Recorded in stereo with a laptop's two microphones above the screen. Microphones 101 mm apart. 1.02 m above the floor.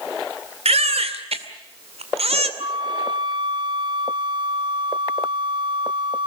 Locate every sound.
0.7 s a baby crying: 90° right, 2.5 m
2.6 s a flute: 50° right (ahead or behind), 0.7 m